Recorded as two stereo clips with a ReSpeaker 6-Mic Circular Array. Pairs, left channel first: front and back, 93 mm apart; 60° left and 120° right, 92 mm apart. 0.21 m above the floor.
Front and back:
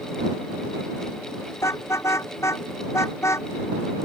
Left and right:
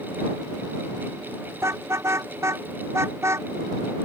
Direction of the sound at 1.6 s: 60° right.